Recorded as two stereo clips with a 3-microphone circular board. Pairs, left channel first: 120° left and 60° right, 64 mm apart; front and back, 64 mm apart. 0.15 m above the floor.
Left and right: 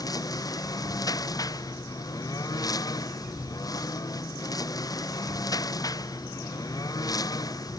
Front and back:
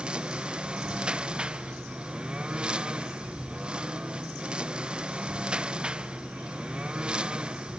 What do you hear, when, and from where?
0.0 s a lawn mower: 105° left